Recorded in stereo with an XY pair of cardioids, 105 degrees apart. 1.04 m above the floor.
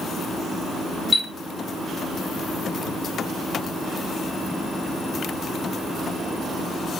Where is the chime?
30° left, 1.0 m.